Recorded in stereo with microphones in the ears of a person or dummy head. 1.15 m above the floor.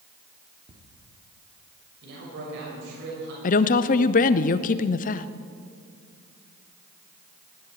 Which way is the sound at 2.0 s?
70° right (ahead or behind).